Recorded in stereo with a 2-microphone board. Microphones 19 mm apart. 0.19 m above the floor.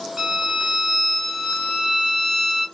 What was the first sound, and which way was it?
A violin, 40° right (ahead or behind).